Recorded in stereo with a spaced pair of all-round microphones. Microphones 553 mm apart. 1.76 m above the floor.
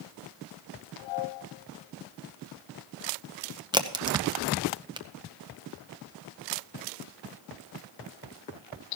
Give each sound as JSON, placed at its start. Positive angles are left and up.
{"t": 3.7, "sound": "a crack", "side_deg": -10, "distance_m": 0.9}